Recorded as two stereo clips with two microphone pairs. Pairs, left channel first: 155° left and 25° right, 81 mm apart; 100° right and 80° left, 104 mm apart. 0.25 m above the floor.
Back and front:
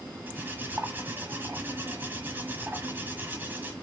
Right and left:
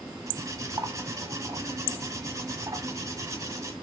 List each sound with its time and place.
0.3 s cutlery clinking: 30° left, 1.2 m